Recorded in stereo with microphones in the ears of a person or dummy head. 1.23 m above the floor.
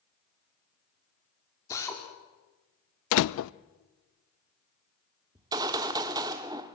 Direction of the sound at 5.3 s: 20° right (ahead or behind).